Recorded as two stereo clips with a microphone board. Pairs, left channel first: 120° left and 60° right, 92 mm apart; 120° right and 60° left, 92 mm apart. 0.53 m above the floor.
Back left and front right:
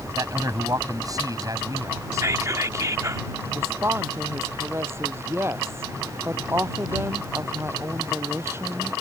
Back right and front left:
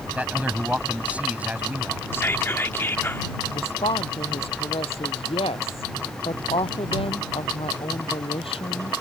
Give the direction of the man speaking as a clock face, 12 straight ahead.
12 o'clock.